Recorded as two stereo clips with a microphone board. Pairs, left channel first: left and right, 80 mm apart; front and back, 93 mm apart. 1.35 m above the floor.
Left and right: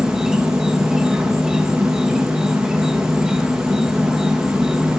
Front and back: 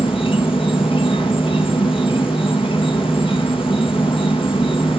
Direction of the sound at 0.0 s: 5° right.